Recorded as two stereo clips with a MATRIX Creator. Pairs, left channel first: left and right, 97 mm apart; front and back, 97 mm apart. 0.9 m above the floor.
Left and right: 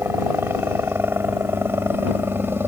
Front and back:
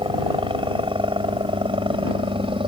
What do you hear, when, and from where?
0.0 s a helicopter: 155° right